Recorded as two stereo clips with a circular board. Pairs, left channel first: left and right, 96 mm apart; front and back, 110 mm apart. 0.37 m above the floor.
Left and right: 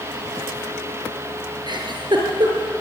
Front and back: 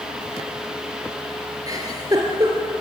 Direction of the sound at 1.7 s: 125° right.